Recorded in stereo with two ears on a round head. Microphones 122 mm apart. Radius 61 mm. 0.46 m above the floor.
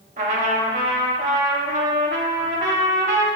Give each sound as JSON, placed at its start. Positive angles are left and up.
{"t": 0.2, "sound": "a trumpet", "side_deg": -60, "distance_m": 0.7}